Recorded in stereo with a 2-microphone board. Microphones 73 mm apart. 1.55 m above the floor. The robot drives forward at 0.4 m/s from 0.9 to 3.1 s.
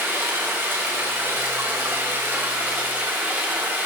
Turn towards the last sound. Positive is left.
turn(degrees=-25)  # may be behind; listen again after turning